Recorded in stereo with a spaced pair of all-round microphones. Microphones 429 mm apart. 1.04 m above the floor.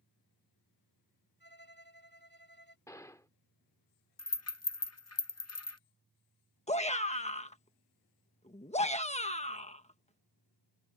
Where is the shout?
15° left (ahead or behind).